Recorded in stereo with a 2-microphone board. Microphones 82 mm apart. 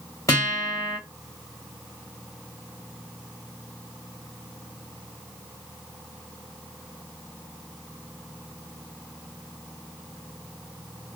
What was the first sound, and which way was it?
A guitar, 40° left (ahead or behind).